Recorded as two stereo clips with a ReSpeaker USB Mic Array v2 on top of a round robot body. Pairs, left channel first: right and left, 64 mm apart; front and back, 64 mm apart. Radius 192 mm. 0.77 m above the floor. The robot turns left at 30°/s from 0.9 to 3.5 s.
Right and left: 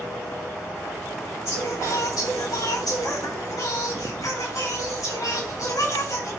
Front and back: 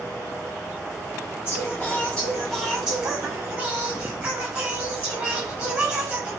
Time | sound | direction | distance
1.4 | singing | 60° right | 8 m